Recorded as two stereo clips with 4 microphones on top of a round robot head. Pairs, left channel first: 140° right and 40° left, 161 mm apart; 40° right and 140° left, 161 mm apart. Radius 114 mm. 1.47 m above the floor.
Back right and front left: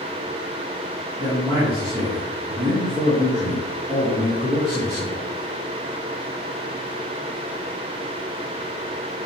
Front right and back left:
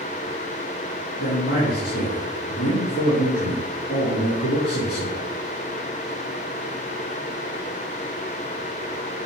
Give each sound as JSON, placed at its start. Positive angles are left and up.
{"t": 1.2, "sound": "a man speaking", "azimuth_deg": -30, "distance_m": 3.5}